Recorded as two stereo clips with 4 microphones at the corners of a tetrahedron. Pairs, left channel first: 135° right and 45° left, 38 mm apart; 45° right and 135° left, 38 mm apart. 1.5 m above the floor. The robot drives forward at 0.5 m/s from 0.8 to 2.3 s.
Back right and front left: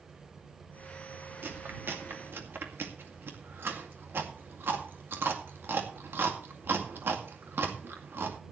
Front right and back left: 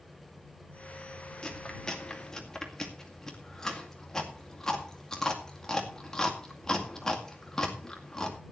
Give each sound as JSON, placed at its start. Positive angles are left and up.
{"t": 1.4, "sound": "chewing", "azimuth_deg": 25, "distance_m": 2.5}